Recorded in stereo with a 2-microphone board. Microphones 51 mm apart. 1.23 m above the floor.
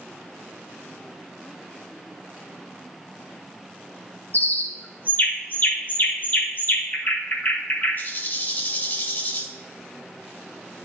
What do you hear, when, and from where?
4.3 s a bird: 40° left (ahead or behind), 1.0 m